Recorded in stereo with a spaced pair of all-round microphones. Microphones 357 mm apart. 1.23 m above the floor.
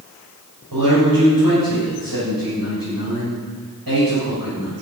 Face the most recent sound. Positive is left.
turn(degrees=-80)